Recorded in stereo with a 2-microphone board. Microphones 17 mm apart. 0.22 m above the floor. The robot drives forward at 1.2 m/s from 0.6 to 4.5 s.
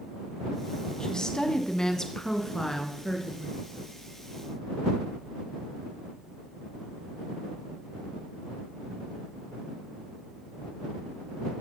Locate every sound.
1.0 s a woman speaking: 45° left (ahead or behind), 1.3 m; by 3.6 s 15° left (ahead or behind), 3.5 m